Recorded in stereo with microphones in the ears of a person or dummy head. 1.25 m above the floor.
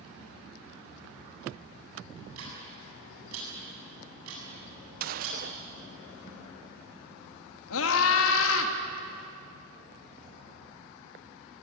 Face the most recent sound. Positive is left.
turn(degrees=80)